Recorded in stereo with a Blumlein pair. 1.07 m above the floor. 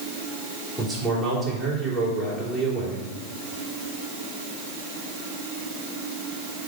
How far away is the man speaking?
About 3 m.